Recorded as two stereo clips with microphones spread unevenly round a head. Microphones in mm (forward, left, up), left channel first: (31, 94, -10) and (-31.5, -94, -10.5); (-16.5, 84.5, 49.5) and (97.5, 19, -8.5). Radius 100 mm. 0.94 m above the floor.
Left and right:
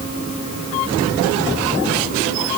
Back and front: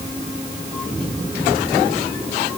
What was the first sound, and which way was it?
Only background noise.